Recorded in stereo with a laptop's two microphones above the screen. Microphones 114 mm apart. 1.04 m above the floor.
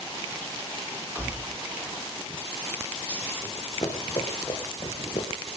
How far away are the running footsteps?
About 4 m.